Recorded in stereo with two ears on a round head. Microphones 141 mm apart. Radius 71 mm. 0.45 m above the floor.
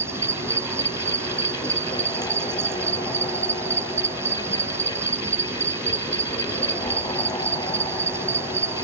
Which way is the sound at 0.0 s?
15° right (ahead or behind).